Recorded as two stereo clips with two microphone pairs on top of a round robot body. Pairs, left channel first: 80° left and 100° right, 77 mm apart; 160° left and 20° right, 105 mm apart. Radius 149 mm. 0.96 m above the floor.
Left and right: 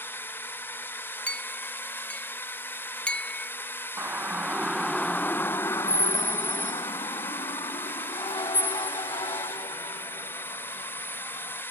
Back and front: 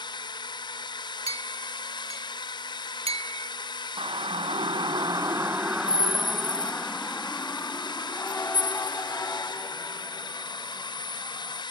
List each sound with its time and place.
0.0 s a drone: 130° left
1.3 s a clink: 5° left
4.0 s a siren: 35° right; by 11.6 s 100° left